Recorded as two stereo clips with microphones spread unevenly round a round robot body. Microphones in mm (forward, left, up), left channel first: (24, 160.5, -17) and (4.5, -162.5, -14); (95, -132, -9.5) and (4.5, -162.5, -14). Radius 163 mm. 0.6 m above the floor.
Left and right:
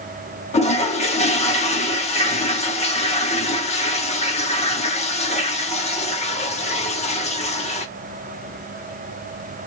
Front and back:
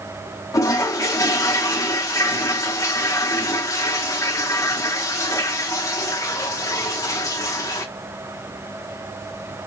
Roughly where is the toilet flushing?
Ahead left.